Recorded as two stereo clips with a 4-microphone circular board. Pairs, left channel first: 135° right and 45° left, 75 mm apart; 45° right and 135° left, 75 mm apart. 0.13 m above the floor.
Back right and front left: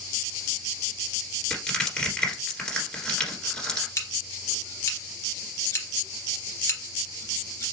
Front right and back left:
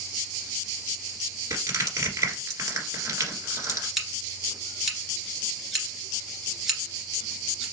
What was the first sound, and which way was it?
Crushing, 155° left.